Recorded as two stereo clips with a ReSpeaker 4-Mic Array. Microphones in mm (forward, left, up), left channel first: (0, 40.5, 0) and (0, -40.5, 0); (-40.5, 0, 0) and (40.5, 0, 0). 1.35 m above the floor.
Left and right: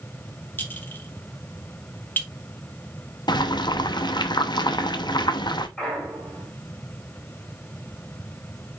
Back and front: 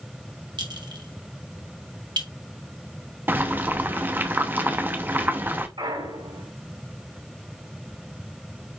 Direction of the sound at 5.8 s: 5° left.